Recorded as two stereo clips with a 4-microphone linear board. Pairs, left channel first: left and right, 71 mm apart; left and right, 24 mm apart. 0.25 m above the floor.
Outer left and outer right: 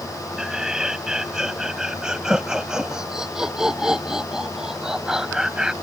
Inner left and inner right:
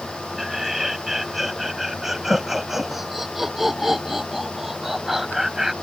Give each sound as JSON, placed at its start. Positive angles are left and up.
{"t": 0.4, "sound": "laughter", "side_deg": -10}